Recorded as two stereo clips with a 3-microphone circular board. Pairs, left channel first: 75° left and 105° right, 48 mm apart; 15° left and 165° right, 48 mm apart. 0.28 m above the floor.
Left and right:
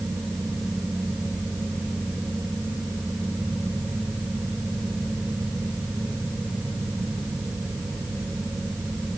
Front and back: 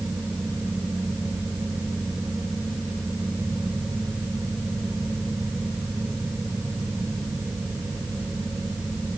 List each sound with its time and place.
Only background noise.